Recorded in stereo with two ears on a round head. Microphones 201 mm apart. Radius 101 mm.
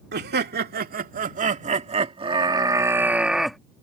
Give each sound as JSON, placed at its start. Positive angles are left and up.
{"t": 0.1, "sound": "laughter", "side_deg": -50}